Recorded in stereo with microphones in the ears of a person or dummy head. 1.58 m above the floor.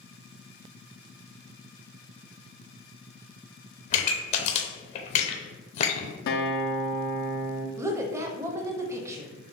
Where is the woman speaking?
20° right (ahead or behind), 0.5 m.